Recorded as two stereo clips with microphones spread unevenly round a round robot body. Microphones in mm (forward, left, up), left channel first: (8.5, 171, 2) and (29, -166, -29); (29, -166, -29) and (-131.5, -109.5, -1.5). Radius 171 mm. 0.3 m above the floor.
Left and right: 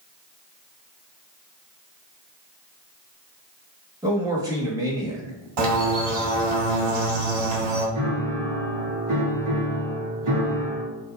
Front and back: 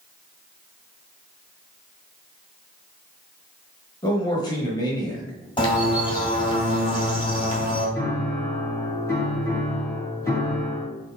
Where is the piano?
85° right, 2 m.